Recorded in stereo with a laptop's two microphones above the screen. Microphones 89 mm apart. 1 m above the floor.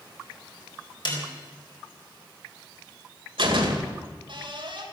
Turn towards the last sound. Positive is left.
turn(degrees=-70)  # may be behind; listen again after turning